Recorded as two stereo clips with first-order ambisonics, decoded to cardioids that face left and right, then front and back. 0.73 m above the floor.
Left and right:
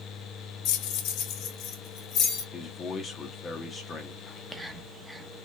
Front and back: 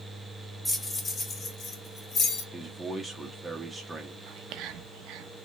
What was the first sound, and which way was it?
Keys jangling, 80° left.